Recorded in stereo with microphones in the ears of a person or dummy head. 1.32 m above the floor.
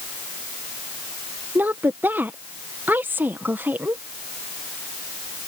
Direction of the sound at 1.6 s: 10° right (ahead or behind).